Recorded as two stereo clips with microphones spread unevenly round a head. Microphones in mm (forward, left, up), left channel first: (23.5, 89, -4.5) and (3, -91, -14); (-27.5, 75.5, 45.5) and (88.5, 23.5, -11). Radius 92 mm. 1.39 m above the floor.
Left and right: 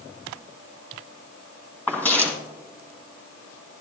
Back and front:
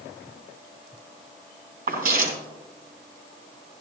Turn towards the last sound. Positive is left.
turn(degrees=5)